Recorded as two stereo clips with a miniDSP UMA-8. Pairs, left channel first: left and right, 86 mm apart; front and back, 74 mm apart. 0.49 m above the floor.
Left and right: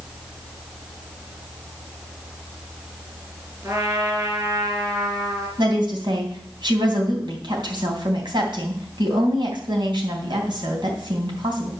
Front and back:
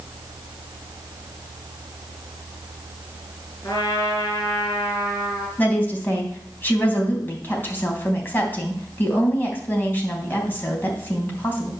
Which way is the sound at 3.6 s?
40° right.